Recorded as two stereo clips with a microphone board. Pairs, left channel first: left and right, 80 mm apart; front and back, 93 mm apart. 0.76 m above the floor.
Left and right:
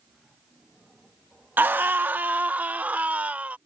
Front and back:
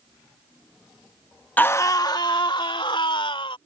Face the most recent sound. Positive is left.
turn(degrees=-20)